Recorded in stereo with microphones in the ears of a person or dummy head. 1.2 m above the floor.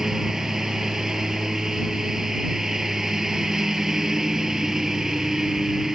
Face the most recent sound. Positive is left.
turn(degrees=0)  # may be behind; listen again after turning